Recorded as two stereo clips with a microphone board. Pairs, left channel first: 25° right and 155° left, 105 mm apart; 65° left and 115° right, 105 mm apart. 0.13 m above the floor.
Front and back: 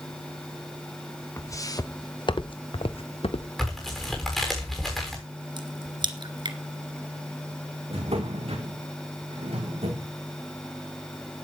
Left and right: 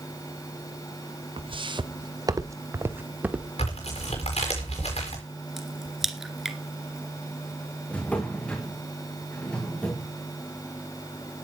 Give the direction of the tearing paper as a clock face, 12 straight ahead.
10 o'clock.